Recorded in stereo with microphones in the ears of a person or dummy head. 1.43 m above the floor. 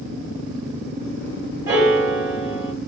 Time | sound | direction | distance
1.7 | a piano | 10° right (ahead or behind) | 2 m